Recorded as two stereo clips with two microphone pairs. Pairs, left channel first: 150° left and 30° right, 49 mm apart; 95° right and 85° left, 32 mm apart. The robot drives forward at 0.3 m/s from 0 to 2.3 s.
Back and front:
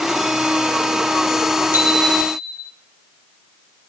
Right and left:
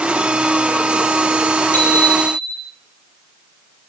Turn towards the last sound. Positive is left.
turn(degrees=-80)